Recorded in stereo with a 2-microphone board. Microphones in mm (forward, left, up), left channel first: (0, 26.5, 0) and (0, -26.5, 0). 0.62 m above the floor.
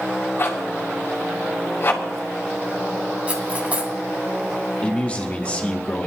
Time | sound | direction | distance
0.4 | a zipper | 45° left (ahead or behind) | 2.5 m
3.3 | cutlery clinking | 25° right (ahead or behind) | 2.5 m
4.8 | a man speaking | 25° left (ahead or behind) | 1.3 m